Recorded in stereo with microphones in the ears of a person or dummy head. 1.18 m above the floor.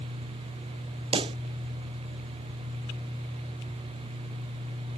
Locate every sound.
1.1 s a pop: 25° right (ahead or behind)